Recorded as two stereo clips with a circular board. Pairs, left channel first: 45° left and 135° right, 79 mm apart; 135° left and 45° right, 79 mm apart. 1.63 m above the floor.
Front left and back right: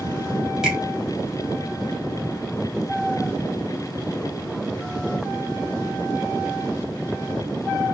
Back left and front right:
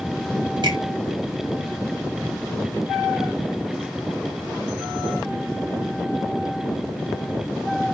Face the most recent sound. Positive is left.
turn(degrees=-55)